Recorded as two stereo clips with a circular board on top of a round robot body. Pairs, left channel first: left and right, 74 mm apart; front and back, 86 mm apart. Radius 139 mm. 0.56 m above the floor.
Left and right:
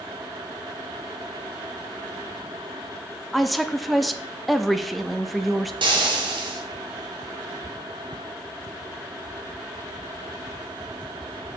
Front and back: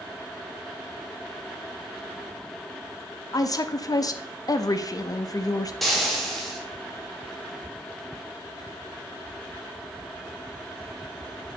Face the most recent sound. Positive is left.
turn(degrees=-90)